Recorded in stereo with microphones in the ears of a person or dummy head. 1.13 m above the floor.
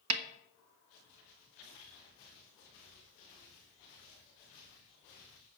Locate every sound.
0.1 s a snare drum: 80° right, 1.1 m